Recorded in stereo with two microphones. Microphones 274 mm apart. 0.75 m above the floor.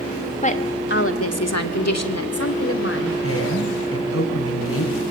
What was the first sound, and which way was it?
A woman speaking, 25° left (ahead or behind).